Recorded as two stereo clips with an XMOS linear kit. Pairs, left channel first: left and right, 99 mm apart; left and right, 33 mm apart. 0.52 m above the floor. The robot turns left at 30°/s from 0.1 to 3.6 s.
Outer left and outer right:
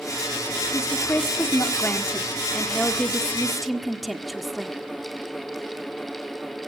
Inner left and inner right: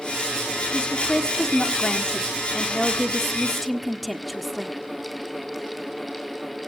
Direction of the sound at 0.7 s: 30° left (ahead or behind).